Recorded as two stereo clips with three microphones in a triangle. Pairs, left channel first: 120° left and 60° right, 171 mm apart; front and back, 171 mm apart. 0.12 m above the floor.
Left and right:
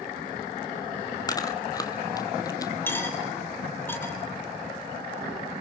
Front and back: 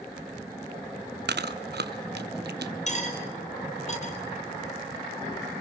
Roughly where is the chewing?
Behind.